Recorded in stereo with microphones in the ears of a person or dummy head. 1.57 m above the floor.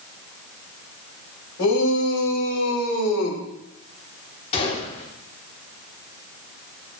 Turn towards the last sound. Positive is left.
turn(degrees=35)  # may be behind; listen again after turning